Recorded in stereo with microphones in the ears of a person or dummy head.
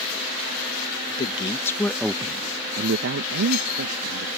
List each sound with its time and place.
1.1 s a man speaking: 30° left (ahead or behind); by 4.4 s 85° right